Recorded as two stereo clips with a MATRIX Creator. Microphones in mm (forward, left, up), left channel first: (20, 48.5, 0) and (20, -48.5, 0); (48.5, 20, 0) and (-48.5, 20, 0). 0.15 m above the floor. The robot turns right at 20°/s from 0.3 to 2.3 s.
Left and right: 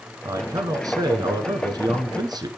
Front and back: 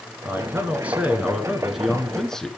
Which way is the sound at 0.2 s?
120° right.